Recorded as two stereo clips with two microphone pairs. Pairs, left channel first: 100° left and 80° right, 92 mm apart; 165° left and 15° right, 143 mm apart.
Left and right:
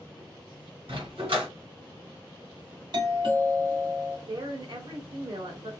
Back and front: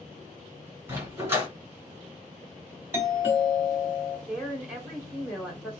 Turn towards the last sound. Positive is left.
turn(degrees=-100)